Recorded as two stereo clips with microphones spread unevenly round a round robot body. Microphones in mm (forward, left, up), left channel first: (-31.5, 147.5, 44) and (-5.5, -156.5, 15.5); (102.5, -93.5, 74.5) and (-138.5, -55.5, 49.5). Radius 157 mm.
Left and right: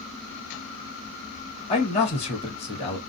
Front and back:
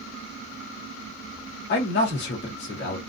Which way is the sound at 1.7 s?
25° left.